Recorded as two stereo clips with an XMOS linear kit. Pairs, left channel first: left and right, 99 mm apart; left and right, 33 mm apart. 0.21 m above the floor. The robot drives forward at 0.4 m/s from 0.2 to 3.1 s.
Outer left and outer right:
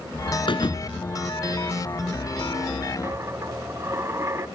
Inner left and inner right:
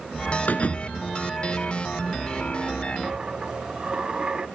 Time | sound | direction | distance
0.5 | a thud | 55° left (ahead or behind) | 1.3 m
3.0 | a dropped coin | 30° right (ahead or behind) | 0.7 m